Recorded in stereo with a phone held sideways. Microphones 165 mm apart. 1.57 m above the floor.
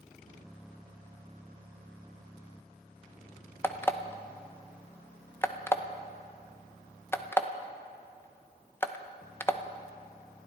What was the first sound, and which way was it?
An alarm clock, 15° left (ahead or behind).